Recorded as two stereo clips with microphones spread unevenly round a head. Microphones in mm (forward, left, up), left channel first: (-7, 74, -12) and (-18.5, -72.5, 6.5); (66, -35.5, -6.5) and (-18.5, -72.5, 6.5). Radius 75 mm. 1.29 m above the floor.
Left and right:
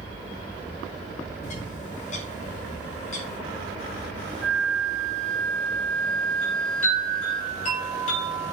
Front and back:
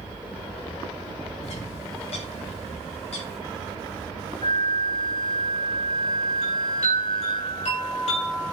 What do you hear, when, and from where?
1.4 s a bird: 40° left, 2.0 m
4.4 s a flute: straight ahead, 1.3 m
6.4 s a chime: 40° left, 8.5 m